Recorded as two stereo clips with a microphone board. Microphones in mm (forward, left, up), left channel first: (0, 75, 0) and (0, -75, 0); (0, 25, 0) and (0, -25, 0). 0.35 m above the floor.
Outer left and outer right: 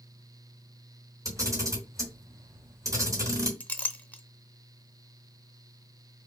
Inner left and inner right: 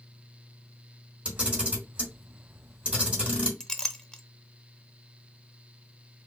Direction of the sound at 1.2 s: 20° right (ahead or behind).